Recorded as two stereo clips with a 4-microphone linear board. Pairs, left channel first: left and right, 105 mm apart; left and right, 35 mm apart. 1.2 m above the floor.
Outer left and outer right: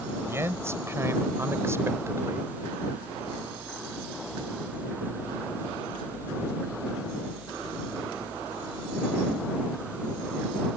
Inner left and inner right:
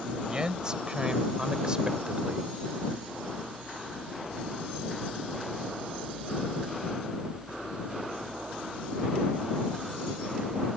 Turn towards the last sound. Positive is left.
turn(degrees=-25)  # may be behind; listen again after turning